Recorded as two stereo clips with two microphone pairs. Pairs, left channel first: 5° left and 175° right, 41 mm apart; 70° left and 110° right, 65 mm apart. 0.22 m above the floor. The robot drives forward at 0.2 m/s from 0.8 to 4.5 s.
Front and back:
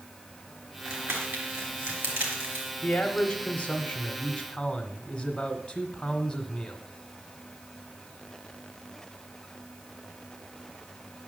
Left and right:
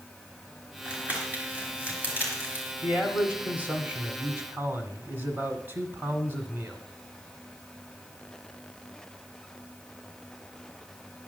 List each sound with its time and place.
0.8 s crumpling: 175° right, 3.5 m
2.8 s a man speaking: 65° right, 1.6 m; by 6.8 s 80° right, 1.5 m